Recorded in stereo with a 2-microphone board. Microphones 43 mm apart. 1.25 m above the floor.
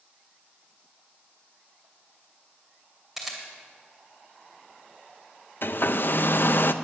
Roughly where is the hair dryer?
Left.